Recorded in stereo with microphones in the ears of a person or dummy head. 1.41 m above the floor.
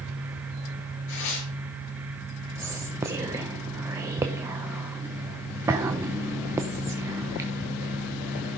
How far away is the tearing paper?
About 4 m.